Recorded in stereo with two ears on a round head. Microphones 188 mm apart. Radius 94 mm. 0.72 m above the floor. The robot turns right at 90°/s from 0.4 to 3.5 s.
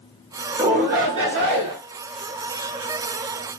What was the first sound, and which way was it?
A shout, 150° right.